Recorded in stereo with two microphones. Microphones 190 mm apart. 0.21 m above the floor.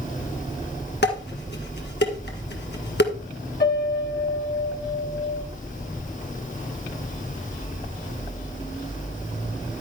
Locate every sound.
1.0 s dishes clattering: 60° left (ahead or behind), 1.7 m
3.6 s a piano: 50° left (ahead or behind), 1.7 m